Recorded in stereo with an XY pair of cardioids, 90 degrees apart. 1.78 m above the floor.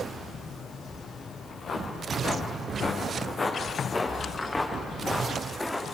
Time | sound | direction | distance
1.4 | footsteps | 65° left | 6.5 m